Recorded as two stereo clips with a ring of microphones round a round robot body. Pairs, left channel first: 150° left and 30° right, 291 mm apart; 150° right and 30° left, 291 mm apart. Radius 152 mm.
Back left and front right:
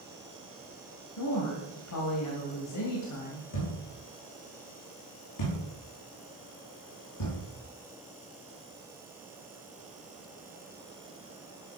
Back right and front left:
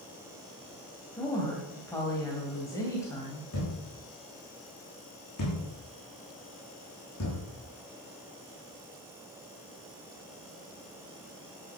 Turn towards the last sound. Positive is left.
turn(degrees=165)